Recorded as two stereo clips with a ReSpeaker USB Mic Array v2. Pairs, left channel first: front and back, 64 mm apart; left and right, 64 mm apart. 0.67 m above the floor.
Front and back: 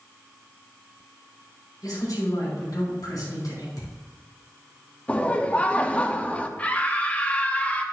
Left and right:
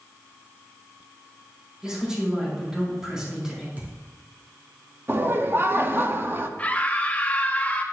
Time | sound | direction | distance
1.8 | a man speaking | 10° right | 5 m
3.8 | a thud | 30° right | 3.5 m
5.1 | laughter | 60° right | 0.7 m
6.6 | a scream | 45° left | 1.0 m